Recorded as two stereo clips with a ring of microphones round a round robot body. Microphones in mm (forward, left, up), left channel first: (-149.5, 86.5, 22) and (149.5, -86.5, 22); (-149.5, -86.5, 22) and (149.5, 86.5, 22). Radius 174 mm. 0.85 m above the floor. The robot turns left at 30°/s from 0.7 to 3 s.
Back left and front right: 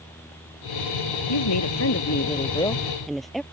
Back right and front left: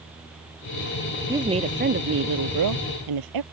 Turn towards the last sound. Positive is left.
turn(degrees=60)